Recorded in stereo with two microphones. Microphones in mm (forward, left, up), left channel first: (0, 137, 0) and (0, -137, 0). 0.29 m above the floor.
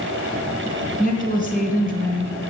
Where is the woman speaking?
30° left (ahead or behind), 3 m.